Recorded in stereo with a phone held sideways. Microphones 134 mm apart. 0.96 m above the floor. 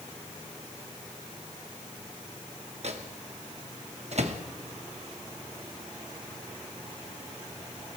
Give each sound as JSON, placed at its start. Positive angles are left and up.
{"t": 2.8, "sound": "a microwave", "side_deg": -55, "distance_m": 0.9}